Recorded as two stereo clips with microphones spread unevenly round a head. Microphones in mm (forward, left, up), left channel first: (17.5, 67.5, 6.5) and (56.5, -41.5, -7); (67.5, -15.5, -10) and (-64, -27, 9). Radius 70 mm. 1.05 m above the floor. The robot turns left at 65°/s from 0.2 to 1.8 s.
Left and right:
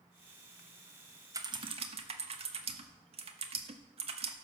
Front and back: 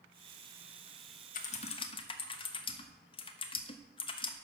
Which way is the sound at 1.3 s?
10° right.